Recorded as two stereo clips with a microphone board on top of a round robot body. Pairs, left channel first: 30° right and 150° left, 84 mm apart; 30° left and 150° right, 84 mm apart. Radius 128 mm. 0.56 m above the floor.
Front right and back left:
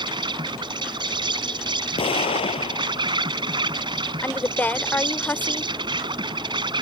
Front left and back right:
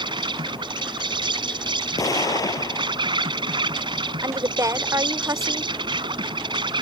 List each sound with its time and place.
0.0 s an insect: straight behind
2.0 s an explosion: 20° right
4.2 s a woman speaking: 100° right